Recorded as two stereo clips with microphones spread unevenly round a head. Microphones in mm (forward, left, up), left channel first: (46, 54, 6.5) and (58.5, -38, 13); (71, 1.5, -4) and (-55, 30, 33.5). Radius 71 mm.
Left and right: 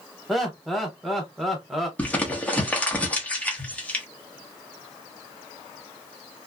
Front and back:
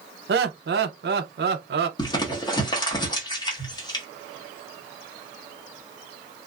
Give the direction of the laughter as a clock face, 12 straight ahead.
6 o'clock.